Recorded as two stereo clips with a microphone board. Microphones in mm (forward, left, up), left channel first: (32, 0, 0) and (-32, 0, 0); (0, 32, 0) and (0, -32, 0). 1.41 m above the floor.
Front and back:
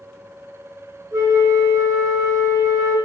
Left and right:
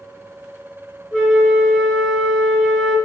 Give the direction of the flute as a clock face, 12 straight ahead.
7 o'clock.